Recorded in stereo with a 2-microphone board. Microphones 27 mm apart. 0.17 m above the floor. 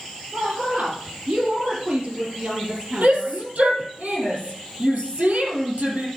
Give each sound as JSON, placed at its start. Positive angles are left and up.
{"t": 0.3, "sound": "a woman speaking", "side_deg": -55, "distance_m": 4.5}
{"t": 3.0, "sound": "a shout", "side_deg": -65, "distance_m": 4.0}